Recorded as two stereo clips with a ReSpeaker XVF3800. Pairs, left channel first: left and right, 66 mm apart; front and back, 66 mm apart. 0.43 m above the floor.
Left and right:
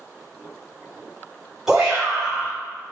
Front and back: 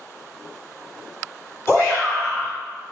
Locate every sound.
1.7 s a shout: 10° right, 1.8 m